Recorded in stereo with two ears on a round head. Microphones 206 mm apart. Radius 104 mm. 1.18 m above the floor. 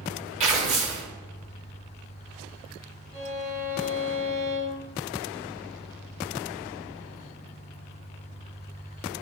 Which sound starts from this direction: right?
Tearing paper, at 0.4 s.